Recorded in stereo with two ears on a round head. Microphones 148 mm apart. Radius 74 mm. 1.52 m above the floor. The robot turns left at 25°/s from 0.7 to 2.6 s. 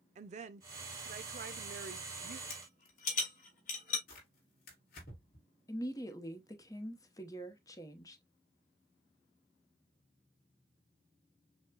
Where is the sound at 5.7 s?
20° left (ahead or behind), 0.9 m.